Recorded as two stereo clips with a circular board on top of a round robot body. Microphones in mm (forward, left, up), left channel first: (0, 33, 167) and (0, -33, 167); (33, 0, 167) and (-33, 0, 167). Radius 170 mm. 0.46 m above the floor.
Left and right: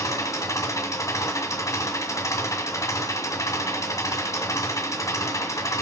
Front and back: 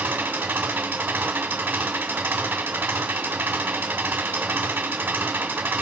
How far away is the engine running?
About 2 m.